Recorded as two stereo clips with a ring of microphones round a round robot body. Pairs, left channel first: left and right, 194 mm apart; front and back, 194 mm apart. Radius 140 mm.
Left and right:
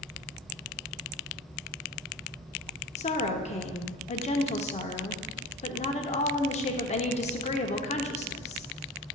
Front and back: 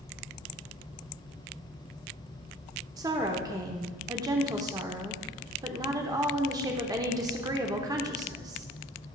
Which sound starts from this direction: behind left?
A woman speaking, at 3.0 s.